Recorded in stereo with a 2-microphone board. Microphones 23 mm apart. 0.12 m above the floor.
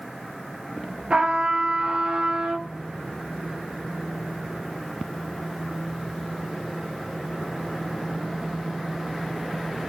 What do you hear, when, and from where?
1.1 s a trumpet: 40° right (ahead or behind), 1.9 m